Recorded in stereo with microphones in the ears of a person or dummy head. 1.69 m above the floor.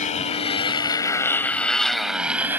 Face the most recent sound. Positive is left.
turn(degrees=-10)  # may be behind; listen again after turning